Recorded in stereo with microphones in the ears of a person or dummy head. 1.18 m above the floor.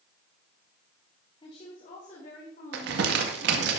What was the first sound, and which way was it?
A woman speaking, 30° left (ahead or behind).